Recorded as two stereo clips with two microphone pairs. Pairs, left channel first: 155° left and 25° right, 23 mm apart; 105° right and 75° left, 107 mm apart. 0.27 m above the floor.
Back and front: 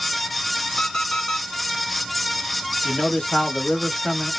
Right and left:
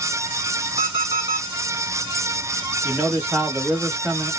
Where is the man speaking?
125° left, 1.4 m.